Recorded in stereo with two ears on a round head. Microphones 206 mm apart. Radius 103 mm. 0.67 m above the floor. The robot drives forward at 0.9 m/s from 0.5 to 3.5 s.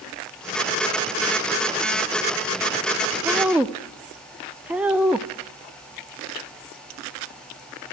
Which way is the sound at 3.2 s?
5° right (ahead or behind).